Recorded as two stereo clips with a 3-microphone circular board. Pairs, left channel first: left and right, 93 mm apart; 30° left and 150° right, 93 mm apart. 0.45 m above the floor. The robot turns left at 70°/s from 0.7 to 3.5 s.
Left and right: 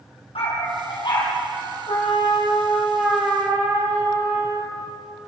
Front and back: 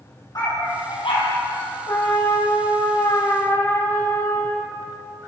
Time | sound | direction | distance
0.3 | a dog barking | 80° left | 6 m
1.9 | a trumpet | 80° left | 5.5 m